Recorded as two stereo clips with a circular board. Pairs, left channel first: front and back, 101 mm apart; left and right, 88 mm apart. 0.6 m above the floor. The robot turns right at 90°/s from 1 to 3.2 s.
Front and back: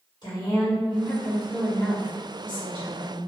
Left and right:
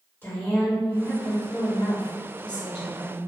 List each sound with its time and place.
0.2 s a woman speaking: 30° left, 1.5 m; by 3.2 s 135° right, 1.5 m